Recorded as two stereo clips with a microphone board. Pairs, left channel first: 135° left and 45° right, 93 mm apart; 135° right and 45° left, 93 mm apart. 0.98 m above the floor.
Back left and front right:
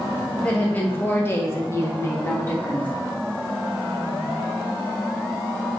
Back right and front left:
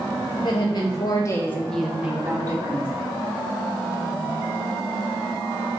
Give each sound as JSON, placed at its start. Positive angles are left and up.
{"t": 0.3, "sound": "a woman speaking", "azimuth_deg": -150, "distance_m": 1.2}